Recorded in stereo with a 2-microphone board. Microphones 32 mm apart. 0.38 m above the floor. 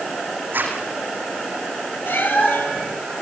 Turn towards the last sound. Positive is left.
turn(degrees=80)